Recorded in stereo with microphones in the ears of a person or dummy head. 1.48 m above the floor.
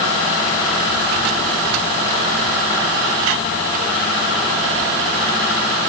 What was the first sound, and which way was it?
Only background noise.